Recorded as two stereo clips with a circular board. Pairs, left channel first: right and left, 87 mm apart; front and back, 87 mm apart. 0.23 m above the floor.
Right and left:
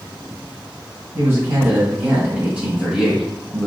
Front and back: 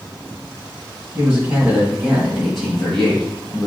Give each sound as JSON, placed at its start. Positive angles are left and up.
{"t": 1.1, "sound": "a man speaking", "azimuth_deg": 130, "distance_m": 1.7}